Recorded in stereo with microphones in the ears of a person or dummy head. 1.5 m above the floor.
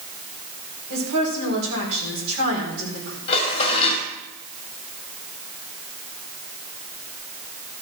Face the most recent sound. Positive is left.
turn(degrees=35)  # may be behind; listen again after turning